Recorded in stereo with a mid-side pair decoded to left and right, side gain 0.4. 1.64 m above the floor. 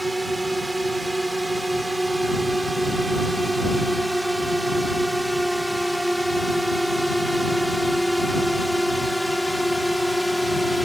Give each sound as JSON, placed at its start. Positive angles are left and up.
{"t": 0.0, "sound": "a drone", "azimuth_deg": -15}